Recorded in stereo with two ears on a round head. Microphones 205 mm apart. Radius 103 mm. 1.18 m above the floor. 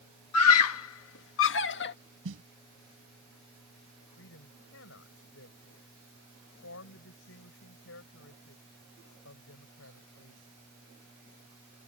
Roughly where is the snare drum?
Right.